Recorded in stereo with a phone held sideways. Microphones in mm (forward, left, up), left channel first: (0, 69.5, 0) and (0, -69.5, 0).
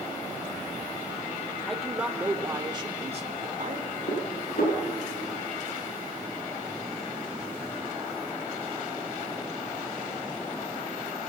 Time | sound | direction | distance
1.7 | a man speaking | centre (ahead or behind) | 2.5 m
4.1 | dishes clattering | 80° left | 6.5 m